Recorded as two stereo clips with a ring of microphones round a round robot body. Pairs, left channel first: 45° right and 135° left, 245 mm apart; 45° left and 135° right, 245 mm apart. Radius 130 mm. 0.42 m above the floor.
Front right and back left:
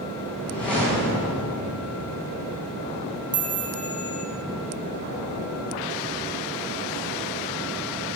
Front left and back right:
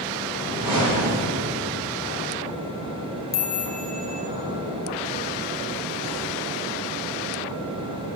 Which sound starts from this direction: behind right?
A whoosh, at 0.3 s.